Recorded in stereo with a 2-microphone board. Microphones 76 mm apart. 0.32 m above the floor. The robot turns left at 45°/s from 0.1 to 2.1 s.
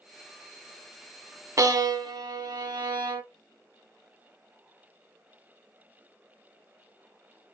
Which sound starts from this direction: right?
A violin, at 1.6 s.